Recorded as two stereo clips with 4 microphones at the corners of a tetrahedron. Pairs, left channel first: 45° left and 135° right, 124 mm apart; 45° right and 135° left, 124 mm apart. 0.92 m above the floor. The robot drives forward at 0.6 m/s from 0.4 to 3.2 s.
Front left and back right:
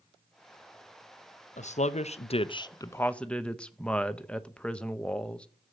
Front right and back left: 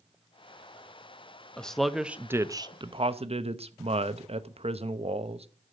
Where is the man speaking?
35° left, 0.9 m; by 5.5 s 125° left, 0.7 m.